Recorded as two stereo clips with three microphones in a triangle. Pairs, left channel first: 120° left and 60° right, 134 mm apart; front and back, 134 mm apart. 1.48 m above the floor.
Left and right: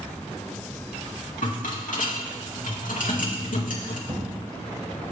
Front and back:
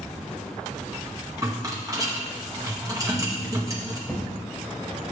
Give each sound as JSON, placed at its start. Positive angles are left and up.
{"t": 1.4, "sound": "a rattle", "azimuth_deg": 115, "distance_m": 2.0}
{"t": 4.1, "sound": "an explosion", "azimuth_deg": -85, "distance_m": 3.5}